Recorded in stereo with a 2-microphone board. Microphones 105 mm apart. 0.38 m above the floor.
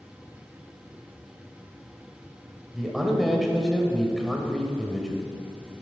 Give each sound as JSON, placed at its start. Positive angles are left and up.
{"t": 2.7, "sound": "a man speaking", "side_deg": 0, "distance_m": 1.4}